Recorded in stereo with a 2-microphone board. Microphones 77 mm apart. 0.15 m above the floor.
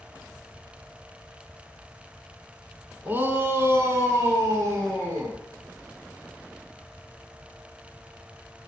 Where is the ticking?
I don't hear ticking.